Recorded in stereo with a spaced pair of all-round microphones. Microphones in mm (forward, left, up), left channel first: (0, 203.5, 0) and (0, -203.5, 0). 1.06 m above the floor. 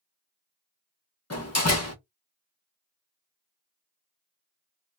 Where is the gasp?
No gasp in this recording.